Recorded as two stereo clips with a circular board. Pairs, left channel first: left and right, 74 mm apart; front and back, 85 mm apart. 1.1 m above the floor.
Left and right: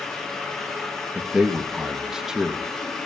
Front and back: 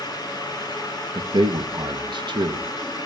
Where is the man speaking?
170° right, 0.9 m.